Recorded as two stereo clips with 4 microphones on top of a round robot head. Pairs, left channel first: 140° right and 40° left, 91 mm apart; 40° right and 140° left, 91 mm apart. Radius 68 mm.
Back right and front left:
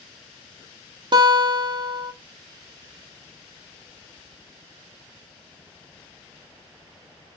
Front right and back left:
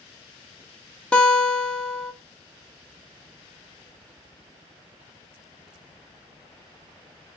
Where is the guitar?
35° left, 1.3 m.